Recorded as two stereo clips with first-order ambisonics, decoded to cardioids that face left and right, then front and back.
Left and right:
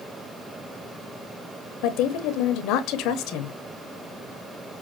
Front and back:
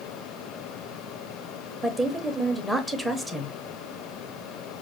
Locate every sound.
1.8 s a woman speaking: 95° left, 0.8 m